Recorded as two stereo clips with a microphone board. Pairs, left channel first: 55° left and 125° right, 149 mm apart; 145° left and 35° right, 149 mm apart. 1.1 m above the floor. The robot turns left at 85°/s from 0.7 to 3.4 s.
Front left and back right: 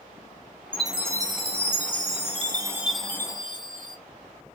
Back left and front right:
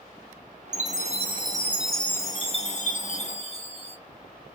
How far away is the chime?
About 0.7 m.